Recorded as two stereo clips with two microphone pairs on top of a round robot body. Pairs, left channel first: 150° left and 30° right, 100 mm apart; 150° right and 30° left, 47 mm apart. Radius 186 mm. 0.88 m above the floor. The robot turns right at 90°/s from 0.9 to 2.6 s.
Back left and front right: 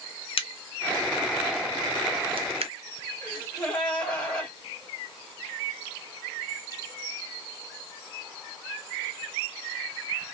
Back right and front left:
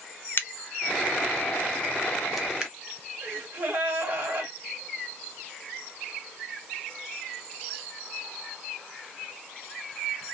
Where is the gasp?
70° left, 1.4 m.